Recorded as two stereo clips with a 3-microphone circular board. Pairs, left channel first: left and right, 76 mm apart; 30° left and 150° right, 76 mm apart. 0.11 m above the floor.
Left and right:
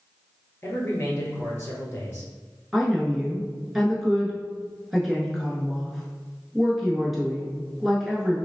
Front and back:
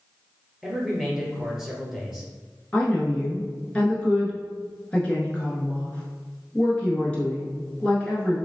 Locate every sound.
0.6 s a man speaking: 130° left, 1.6 m
2.7 s a woman speaking: 10° right, 1.2 m